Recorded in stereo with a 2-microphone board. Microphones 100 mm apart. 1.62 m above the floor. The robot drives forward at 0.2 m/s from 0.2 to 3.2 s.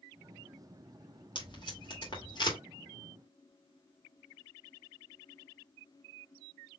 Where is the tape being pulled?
50° left (ahead or behind), 2 m; by 2.6 s 45° left (ahead or behind), 2 m.